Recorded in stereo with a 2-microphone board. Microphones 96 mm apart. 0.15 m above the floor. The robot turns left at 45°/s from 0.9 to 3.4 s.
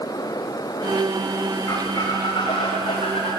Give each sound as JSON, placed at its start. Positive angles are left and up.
{"t": 1.7, "sound": "a squeak", "azimuth_deg": 150, "distance_m": 6.0}